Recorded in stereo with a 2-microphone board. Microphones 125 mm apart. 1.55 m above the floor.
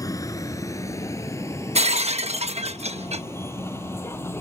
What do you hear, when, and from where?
0.0 s a vehicle: 25° left (ahead or behind); by 4.4 s 15° left (ahead or behind)
1.8 s breaking glass: 55° right (ahead or behind)